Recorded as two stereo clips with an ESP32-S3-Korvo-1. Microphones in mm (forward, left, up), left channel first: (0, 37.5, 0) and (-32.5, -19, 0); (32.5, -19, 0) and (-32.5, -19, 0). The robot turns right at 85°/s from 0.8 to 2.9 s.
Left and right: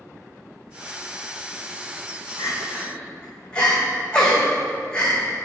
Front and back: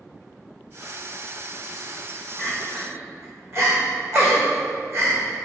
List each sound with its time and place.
2.4 s crying: 95° left, 1.8 m; by 5.2 s 135° left, 1.8 m